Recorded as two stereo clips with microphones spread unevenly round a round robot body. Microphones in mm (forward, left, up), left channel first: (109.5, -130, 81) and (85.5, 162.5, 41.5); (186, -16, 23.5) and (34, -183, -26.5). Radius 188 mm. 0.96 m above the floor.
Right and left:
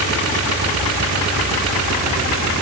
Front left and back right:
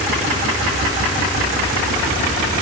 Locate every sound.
Only background noise.